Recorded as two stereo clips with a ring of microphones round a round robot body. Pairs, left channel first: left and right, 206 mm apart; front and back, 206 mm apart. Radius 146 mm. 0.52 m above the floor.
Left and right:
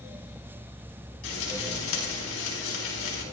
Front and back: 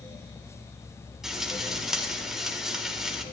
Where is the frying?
90° left, 4.5 m.